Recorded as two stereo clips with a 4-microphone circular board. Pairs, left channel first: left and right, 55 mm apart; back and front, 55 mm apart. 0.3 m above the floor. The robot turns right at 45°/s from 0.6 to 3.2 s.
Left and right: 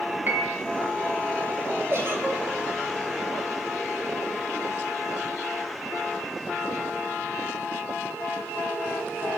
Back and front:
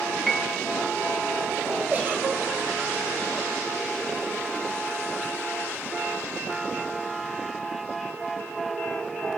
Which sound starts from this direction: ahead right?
A giggle, at 1.9 s.